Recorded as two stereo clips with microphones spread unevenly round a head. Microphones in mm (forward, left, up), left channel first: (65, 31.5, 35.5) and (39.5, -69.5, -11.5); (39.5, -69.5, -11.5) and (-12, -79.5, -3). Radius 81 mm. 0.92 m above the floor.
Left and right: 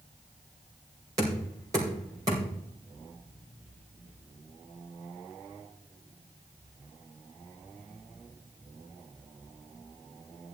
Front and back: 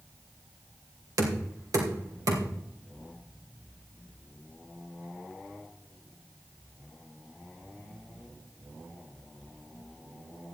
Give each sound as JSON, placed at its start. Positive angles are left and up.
{"t": 1.2, "sound": "knocking", "azimuth_deg": -175, "distance_m": 2.5}